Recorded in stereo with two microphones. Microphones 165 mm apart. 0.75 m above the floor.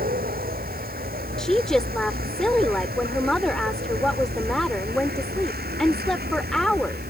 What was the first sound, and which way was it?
A vehicle, 65° right (ahead or behind).